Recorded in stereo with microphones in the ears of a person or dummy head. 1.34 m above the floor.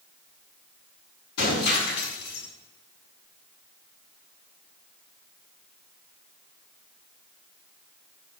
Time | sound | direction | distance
1.4 | breaking glass | 60° left (ahead or behind) | 7.5 m